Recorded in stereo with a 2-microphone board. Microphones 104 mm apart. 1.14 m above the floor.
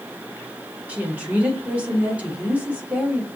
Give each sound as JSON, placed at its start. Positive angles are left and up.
{"t": 0.9, "sound": "a woman speaking", "side_deg": -15, "distance_m": 1.2}